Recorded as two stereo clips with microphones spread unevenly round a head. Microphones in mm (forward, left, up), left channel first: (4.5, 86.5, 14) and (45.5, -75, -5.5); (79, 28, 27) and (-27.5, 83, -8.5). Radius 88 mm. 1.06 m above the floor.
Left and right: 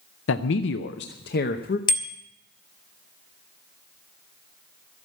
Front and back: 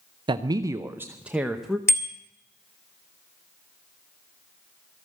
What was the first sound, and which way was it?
A man speaking, 115° left.